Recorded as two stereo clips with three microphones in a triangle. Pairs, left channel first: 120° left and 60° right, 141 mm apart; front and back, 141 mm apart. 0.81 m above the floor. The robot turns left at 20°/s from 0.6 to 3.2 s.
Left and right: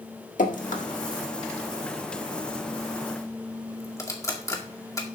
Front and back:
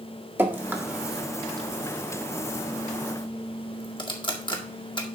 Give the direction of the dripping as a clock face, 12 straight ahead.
8 o'clock.